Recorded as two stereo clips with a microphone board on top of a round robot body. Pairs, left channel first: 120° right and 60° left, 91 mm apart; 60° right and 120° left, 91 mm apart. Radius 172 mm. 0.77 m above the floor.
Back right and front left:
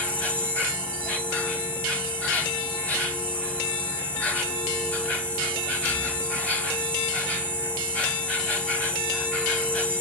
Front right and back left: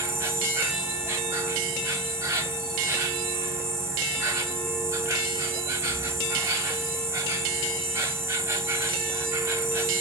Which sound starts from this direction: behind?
An insect, at 0.0 s.